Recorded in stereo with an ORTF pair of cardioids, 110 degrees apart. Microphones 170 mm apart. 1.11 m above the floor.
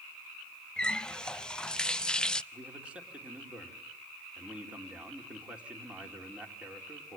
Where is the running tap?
5° left, 0.6 m.